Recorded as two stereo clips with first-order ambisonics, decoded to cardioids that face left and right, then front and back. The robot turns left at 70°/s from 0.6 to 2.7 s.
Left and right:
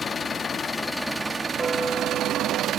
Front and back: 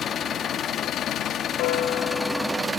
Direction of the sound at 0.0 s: 35° left.